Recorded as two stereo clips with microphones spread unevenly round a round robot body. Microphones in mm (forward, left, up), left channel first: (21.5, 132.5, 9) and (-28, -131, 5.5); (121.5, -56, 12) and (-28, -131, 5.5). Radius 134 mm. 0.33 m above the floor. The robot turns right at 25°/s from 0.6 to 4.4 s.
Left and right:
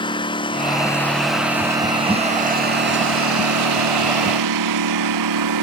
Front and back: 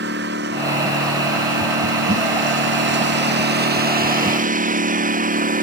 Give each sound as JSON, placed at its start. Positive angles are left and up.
{"t": 0.0, "sound": "a lawn mower", "azimuth_deg": 155}